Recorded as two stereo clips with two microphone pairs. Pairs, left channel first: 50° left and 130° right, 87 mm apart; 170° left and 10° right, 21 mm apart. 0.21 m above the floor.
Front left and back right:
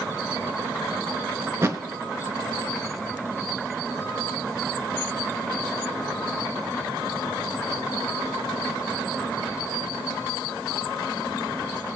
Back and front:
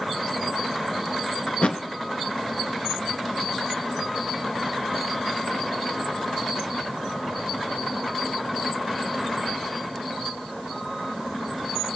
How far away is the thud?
About 0.7 m.